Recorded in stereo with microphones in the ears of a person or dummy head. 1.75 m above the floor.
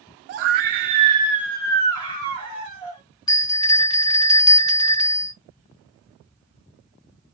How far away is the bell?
About 0.6 m.